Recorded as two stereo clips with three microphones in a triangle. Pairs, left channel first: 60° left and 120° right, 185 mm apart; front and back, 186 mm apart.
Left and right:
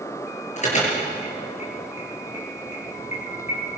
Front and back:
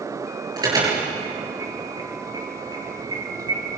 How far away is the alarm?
About 8 m.